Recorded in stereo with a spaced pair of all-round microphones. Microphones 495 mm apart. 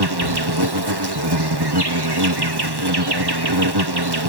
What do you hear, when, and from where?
0.0 s an insect: 50° right (ahead or behind)